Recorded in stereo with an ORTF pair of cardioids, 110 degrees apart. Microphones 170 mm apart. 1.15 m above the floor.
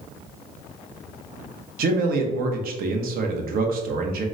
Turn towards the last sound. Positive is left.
turn(degrees=-65)